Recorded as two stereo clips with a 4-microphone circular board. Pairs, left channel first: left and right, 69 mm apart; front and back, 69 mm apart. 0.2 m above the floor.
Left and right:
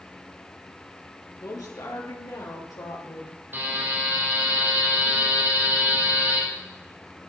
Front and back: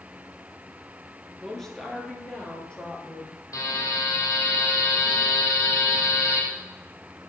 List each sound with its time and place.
1.4 s a woman speaking: 85° left, 3 m; by 3.4 s 75° left, 5 m
3.5 s a buzzer: 30° right, 4.5 m